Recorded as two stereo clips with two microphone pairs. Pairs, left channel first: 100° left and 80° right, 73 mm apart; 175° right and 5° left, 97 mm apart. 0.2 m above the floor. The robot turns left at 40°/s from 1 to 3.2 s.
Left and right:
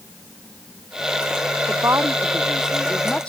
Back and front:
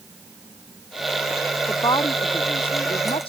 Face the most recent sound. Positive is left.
turn(degrees=175)